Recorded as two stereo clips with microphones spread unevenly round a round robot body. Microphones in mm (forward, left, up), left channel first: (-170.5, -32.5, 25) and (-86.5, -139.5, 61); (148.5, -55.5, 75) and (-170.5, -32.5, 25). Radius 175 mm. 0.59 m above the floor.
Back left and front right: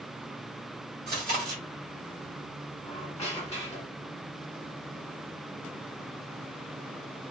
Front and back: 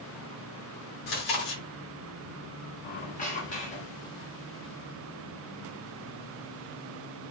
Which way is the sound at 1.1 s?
25° right.